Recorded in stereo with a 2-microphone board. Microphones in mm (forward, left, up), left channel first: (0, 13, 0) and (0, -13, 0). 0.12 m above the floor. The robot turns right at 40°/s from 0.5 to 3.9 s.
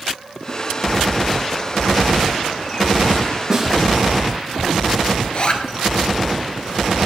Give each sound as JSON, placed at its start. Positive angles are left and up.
{"t": 3.5, "sound": "a snare drum", "side_deg": -25, "distance_m": 5.0}
{"t": 5.2, "sound": "a zipper", "side_deg": 45, "distance_m": 2.0}